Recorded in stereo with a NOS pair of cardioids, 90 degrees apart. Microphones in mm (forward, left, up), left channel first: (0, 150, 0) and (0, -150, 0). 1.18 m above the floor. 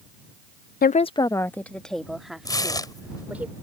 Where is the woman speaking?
35° left; by 3.5 s 5° right.